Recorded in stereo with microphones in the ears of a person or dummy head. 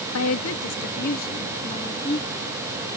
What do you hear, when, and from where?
0.1 s a woman speaking: 80° left; by 3.0 s 20° left (ahead or behind)